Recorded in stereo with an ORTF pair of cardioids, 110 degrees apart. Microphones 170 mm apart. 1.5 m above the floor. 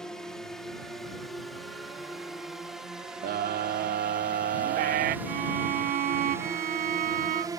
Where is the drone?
5° left; by 7.6 s 25° right.